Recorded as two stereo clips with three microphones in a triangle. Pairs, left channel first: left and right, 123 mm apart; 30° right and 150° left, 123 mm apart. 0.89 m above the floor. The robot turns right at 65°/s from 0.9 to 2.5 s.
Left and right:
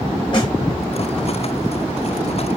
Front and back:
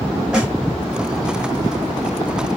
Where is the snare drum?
70° left, 0.7 m.